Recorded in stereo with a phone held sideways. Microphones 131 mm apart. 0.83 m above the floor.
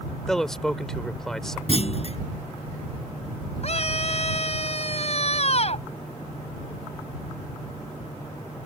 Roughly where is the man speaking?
Centre.